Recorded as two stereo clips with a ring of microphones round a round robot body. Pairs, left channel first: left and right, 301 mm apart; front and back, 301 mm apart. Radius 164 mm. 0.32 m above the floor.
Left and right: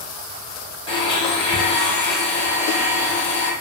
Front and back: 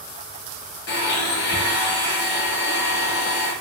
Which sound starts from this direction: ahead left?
A blender, at 0.9 s.